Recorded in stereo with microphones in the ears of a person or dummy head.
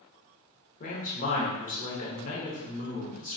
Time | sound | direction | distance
0.8 | a man speaking | 40° left (ahead or behind) | 0.7 m